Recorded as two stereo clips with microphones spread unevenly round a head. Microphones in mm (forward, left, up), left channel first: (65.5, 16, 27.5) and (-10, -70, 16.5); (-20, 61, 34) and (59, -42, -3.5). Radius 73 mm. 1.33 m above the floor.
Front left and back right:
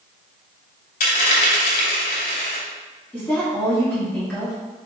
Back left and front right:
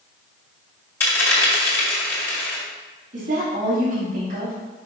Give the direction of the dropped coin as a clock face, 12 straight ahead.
10 o'clock.